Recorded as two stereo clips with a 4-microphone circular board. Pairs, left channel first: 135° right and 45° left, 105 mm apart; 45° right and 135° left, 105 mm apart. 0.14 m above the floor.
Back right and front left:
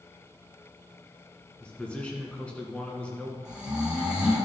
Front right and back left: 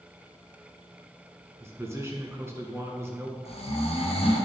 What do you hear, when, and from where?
1.6 s a man speaking: 160° left, 1.5 m
3.5 s snoring: 35° right, 1.9 m